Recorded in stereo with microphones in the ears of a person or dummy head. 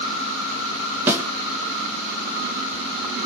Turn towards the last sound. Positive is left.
turn(degrees=-10)  # may be behind; listen again after turning